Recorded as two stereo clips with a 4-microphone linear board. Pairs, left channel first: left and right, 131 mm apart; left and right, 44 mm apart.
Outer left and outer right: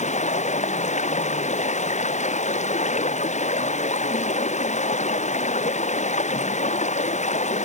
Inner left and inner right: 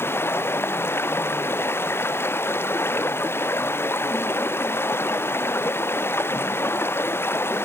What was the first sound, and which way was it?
Running water, 65° left (ahead or behind).